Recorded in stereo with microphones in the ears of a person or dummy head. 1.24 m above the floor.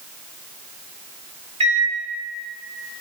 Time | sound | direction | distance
1.6 | a microwave | 40° right (ahead or behind) | 1.2 m